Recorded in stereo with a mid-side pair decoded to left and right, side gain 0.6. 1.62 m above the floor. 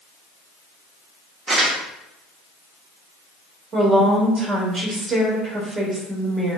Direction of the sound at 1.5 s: 40° right.